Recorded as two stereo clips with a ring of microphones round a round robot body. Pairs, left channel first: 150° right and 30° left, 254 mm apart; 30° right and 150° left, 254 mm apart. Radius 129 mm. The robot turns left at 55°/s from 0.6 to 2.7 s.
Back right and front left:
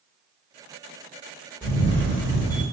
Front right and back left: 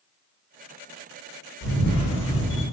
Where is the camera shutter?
65° right, 1.7 m; by 2.6 s 125° right, 1.7 m.